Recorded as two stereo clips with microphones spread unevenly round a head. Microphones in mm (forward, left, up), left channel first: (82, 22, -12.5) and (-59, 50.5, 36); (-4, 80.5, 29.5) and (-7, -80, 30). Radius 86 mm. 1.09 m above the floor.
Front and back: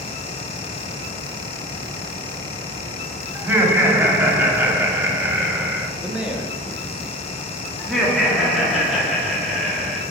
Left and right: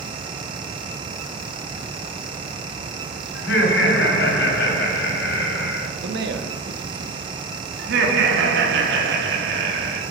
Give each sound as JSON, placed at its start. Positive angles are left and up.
{"t": 3.4, "sound": "laughter", "azimuth_deg": 95, "distance_m": 2.5}
{"t": 6.0, "sound": "a man speaking", "azimuth_deg": -105, "distance_m": 1.2}
{"t": 7.8, "sound": "laughter", "azimuth_deg": -100, "distance_m": 1.8}